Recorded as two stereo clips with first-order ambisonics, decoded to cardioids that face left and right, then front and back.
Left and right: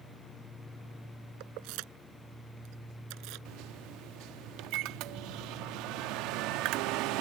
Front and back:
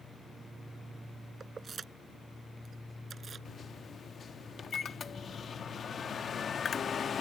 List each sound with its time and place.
1.4 s keys jangling: 110° right; by 3.5 s 115° right
3.5 s a microwave: 65° right